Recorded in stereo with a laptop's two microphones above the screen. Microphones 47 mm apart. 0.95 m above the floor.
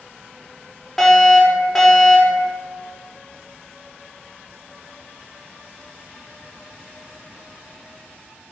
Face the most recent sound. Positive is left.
turn(degrees=5)  # may be behind; listen again after turning